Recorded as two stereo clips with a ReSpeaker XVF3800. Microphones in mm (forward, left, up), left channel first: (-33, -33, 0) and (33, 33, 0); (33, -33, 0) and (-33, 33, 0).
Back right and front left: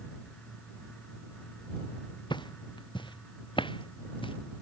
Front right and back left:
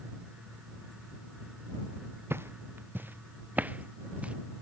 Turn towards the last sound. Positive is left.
turn(degrees=-150)